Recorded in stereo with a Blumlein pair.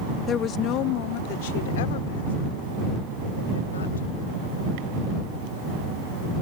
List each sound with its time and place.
0.3 s a woman speaking: 20° left; by 4.7 s 70° left